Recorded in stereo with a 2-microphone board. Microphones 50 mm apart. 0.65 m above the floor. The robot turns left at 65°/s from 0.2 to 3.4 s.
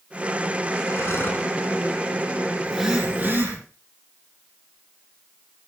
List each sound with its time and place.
0.9 s breathing: 75° left, 3 m; by 1.5 s 35° left, 3 m
2.6 s a phone buzzing: straight ahead, 9 m; by 3.6 s 50° right, 9 m